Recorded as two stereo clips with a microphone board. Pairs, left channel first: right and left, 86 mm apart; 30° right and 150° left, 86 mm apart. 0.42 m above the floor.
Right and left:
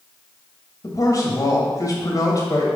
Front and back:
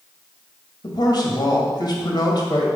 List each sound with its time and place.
0.8 s a man speaking: 50° right, 1.8 m